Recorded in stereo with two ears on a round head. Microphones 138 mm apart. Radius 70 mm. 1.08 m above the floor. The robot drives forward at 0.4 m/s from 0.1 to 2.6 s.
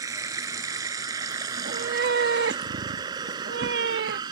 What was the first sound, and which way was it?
Running water, 20° right (ahead or behind).